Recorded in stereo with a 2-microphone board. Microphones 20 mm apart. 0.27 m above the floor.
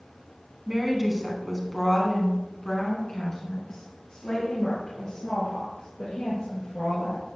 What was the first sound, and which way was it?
A woman speaking, 15° right (ahead or behind).